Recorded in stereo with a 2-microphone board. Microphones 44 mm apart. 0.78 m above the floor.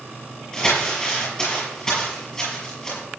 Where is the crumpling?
15° left (ahead or behind), 6.5 m.